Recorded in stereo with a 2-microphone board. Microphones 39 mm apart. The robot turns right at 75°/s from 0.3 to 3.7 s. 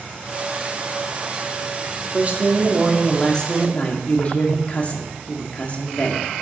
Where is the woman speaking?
65° right, 1.1 m; by 6.3 s 55° left, 1.1 m.